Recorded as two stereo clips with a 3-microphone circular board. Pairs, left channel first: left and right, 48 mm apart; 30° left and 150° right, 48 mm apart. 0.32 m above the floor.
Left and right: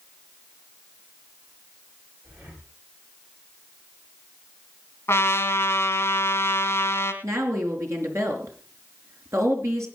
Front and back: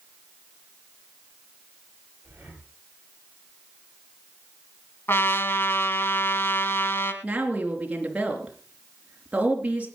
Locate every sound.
2.2 s breathing: 105° right, 8 m
5.1 s a trumpet: 60° left, 2.5 m
7.2 s a woman speaking: 85° right, 4 m